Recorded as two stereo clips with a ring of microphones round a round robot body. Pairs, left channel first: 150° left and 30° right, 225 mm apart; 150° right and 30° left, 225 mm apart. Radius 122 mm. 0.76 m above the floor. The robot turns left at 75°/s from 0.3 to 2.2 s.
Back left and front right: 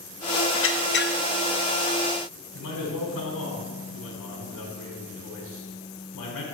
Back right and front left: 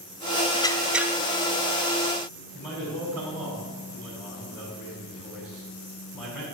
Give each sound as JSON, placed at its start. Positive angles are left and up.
{"t": 0.5, "sound": "a squeak", "azimuth_deg": 145, "distance_m": 0.7}
{"t": 2.5, "sound": "a man speaking", "azimuth_deg": 130, "distance_m": 5.0}